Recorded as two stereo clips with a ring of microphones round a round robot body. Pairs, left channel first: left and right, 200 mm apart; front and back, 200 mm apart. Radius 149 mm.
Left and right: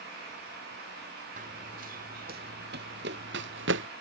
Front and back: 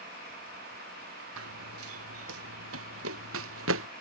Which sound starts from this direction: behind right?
Running footsteps, at 1.4 s.